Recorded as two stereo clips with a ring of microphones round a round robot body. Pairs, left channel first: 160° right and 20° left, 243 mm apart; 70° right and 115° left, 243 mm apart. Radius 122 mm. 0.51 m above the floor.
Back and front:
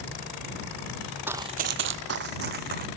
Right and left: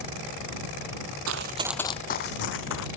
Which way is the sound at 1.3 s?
105° left.